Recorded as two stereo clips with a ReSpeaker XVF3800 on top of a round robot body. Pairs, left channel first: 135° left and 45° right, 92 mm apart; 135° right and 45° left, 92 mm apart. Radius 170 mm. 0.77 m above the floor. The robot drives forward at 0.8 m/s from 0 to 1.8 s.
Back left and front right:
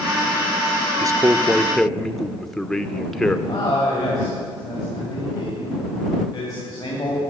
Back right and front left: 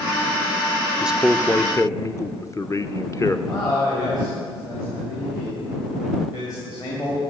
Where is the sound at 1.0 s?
25° right, 0.8 m; by 3.4 s 140° right, 0.7 m.